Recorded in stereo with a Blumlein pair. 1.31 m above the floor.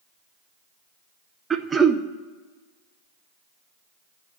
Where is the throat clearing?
15° right, 0.7 m.